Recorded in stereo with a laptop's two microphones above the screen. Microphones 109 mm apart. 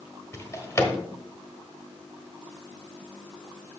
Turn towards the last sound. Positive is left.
turn(degrees=25)  # may be behind; listen again after turning